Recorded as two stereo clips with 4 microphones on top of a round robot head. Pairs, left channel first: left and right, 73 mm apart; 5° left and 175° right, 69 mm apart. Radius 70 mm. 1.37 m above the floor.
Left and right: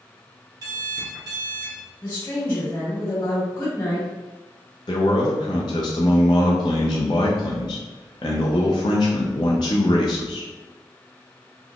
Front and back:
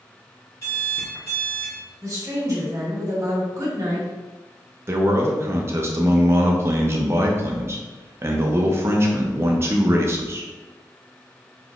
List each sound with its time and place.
0.6 s an alarm clock: 55° right, 1.1 m
2.0 s a woman speaking: 145° left, 1.7 m
4.9 s a man speaking: 135° left, 0.5 m